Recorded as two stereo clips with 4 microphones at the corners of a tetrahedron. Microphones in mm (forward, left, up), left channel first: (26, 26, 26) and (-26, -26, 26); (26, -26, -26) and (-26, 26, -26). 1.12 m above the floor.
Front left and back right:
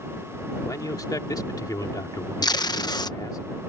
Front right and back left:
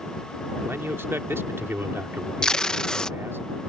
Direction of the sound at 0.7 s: 80° left.